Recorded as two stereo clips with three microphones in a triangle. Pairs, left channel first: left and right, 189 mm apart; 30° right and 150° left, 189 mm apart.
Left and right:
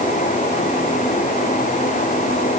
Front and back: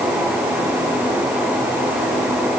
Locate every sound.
Only background noise.